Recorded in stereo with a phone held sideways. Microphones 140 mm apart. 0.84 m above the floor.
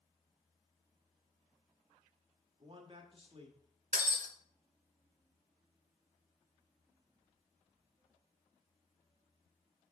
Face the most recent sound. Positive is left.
turn(degrees=-65)  # may be behind; listen again after turning